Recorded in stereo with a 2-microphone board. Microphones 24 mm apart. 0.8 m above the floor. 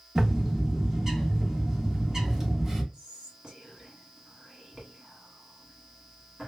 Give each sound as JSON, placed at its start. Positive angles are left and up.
{"t": 0.1, "sound": "a bird", "side_deg": -20, "distance_m": 1.0}
{"t": 2.9, "sound": "whispering", "side_deg": -40, "distance_m": 1.7}